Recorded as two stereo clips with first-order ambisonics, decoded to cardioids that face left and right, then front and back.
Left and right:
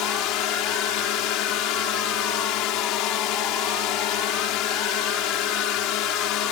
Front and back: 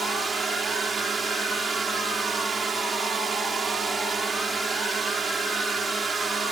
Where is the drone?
110° left.